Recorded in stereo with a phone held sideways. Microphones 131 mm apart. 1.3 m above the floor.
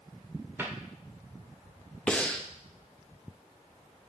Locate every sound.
0.6 s a cupboard door: 15° right (ahead or behind), 1.3 m
2.1 s breathing: 10° left (ahead or behind), 0.6 m